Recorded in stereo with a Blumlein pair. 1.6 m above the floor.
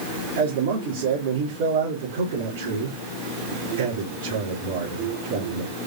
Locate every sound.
0.4 s a man speaking: 50° right, 3 m